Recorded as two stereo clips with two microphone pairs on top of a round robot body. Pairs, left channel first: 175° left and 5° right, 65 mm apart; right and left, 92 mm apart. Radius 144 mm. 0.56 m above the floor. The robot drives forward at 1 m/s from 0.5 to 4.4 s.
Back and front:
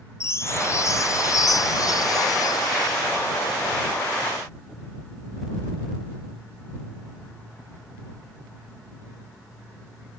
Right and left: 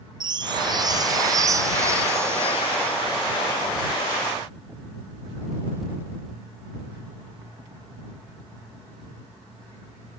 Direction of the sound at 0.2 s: 130° left.